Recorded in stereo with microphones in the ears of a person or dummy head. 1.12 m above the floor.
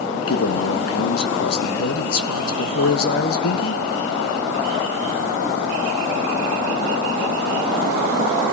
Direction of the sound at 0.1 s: 70° left (ahead or behind).